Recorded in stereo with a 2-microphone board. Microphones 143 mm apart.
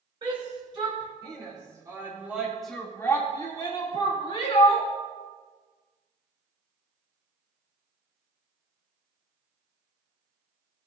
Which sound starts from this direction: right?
A shout, at 0.2 s.